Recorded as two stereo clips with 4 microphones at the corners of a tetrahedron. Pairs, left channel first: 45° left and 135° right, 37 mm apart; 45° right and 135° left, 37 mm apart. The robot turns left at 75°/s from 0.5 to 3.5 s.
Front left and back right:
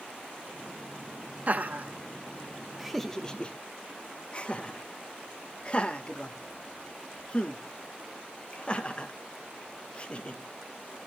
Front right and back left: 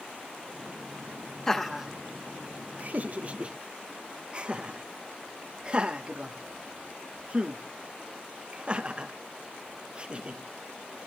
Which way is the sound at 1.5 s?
120° right.